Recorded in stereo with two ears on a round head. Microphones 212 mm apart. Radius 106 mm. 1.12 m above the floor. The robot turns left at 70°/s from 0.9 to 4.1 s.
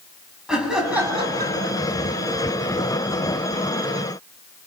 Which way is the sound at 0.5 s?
5° right.